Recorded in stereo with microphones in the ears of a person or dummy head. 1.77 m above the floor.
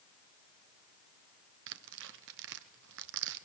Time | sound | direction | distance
1.7 | tearing paper | 70° right (ahead or behind) | 1.2 m